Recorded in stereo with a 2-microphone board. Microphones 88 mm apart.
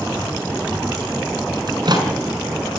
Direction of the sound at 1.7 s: 50° right (ahead or behind).